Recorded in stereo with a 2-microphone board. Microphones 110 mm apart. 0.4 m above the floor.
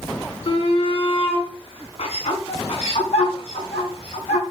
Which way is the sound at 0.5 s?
60° left (ahead or behind).